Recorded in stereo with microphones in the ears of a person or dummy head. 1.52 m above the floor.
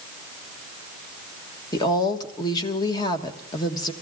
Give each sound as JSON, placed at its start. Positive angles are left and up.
{"t": 1.7, "sound": "a woman speaking", "side_deg": 25, "distance_m": 1.4}